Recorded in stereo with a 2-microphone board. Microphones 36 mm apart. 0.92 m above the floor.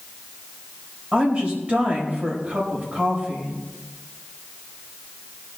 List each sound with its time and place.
1.1 s a woman speaking: 35° right (ahead or behind), 4 m